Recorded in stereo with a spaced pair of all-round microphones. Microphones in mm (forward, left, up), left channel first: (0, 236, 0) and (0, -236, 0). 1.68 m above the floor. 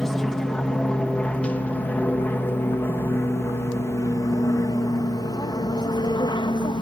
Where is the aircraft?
Centre (ahead or behind); by 6.8 s 10° left (ahead or behind).